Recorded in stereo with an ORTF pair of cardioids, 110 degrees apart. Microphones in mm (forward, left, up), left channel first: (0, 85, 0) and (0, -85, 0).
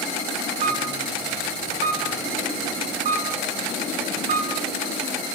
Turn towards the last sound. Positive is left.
turn(degrees=-50)